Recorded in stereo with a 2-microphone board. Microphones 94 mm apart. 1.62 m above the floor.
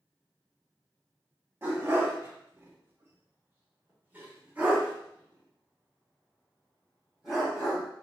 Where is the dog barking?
30° right (ahead or behind), 1.5 m; by 7.8 s 5° right (ahead or behind), 3.5 m.